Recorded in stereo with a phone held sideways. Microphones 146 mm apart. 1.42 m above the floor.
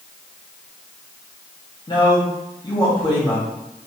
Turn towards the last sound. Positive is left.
turn(degrees=35)  # may be behind; listen again after turning